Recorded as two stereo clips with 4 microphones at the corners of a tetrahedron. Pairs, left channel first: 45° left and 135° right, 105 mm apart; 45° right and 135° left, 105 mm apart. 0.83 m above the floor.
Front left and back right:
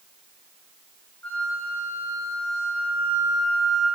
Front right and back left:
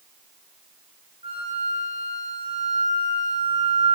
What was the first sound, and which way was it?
A flute, 120° left.